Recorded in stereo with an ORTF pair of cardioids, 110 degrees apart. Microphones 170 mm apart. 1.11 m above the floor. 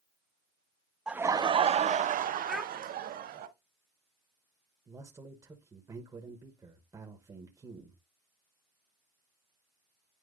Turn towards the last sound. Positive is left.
turn(degrees=-20)